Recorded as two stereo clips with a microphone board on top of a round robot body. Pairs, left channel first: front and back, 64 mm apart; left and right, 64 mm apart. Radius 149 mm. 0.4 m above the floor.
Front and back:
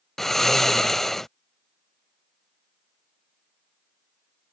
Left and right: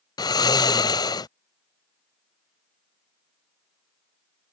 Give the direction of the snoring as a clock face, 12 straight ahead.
9 o'clock.